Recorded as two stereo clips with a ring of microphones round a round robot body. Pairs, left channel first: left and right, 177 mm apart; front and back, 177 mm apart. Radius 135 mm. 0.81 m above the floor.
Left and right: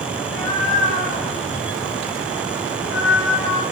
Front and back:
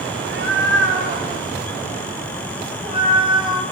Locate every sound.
0.1 s a cat meowing: 170° left, 3.5 m; by 3.6 s 110° left, 4 m